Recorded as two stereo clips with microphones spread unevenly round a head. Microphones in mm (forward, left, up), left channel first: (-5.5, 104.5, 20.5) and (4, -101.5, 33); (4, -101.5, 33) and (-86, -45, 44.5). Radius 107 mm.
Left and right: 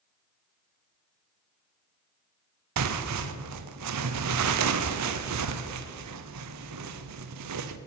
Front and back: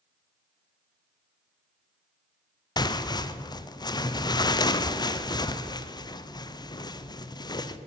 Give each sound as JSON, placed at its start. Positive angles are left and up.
{"t": 2.8, "sound": "tearing paper", "azimuth_deg": -85, "distance_m": 0.8}